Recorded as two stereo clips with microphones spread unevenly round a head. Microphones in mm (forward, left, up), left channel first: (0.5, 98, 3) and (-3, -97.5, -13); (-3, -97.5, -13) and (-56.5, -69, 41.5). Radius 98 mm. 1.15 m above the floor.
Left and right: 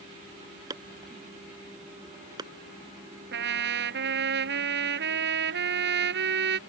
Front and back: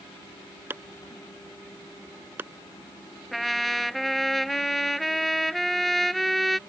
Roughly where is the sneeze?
I don't hear a sneeze.